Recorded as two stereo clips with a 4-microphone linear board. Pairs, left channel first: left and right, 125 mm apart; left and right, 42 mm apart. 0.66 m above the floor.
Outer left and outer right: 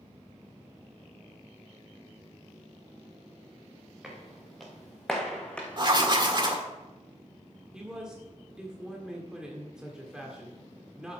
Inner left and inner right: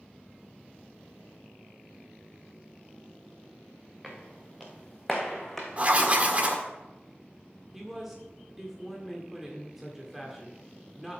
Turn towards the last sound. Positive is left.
turn(degrees=-5)  # may be behind; listen again after turning